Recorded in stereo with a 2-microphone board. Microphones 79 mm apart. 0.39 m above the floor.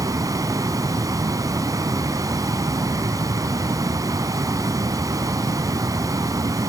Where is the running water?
50° right (ahead or behind), 1.4 m.